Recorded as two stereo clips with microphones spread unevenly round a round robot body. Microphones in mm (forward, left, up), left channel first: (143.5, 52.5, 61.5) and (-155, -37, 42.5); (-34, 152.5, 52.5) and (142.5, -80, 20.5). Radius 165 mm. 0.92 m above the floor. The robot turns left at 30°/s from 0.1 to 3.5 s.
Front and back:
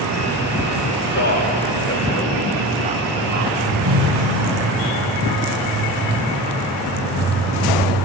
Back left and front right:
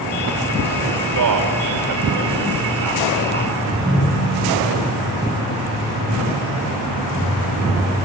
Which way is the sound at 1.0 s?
35° right.